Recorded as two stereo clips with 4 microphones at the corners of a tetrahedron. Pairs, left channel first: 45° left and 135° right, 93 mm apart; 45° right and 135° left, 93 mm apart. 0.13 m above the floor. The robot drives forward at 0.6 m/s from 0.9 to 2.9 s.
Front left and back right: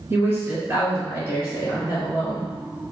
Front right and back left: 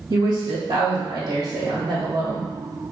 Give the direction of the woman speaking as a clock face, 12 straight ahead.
6 o'clock.